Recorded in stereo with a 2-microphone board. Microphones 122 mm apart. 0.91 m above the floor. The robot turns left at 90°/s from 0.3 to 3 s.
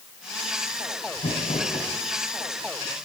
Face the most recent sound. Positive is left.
turn(degrees=-55)